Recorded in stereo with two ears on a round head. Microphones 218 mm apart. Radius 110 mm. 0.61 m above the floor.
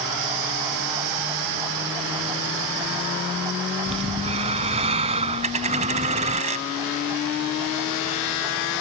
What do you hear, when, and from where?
3.9 s breathing: 25° right (ahead or behind)
5.4 s a dropped coin: 30° right (ahead or behind)